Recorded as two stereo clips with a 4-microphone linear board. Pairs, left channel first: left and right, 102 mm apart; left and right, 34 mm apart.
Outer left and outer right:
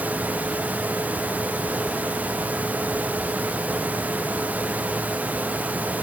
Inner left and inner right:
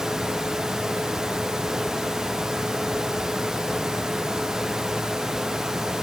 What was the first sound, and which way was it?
Only background noise.